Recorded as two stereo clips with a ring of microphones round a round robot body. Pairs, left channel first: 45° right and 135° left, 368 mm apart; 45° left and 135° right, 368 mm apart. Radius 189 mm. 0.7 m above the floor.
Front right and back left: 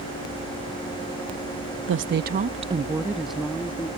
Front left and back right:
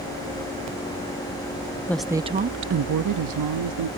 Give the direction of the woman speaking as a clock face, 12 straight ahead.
8 o'clock.